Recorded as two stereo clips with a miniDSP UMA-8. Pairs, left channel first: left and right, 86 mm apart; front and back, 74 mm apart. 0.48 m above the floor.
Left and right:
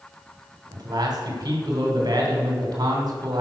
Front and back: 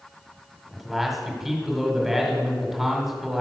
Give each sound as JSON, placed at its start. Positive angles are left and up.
{"t": 0.7, "sound": "a man speaking", "azimuth_deg": -95, "distance_m": 1.6}